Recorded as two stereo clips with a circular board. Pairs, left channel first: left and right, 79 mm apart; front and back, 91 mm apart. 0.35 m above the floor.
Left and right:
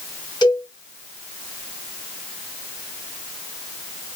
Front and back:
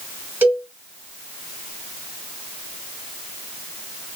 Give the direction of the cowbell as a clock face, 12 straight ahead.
8 o'clock.